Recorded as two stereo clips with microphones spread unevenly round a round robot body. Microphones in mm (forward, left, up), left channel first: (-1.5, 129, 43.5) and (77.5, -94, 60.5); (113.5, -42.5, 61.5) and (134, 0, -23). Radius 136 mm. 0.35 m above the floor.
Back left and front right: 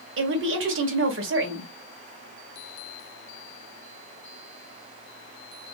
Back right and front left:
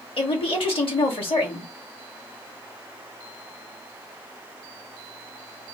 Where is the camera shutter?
No camera shutter in this recording.